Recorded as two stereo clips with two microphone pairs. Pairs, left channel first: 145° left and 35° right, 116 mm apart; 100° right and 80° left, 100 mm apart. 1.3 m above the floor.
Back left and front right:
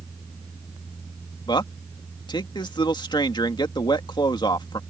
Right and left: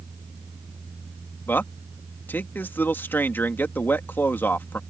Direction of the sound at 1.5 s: 170° right.